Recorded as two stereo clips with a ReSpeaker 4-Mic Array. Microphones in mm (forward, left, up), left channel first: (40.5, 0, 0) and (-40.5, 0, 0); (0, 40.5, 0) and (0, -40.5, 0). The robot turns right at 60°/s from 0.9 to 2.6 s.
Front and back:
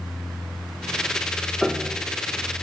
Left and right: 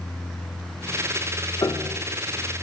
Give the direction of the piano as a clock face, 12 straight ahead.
9 o'clock.